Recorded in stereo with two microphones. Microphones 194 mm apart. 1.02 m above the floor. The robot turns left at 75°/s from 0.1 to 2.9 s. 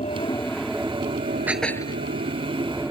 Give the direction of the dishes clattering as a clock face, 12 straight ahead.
6 o'clock.